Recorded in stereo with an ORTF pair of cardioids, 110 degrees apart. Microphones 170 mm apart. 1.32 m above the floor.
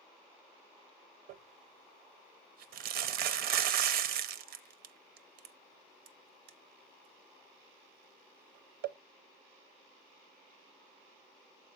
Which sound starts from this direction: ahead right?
Crumpling, at 1.3 s.